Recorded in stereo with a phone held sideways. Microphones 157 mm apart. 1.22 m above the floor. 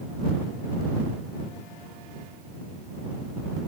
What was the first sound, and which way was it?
Only background noise.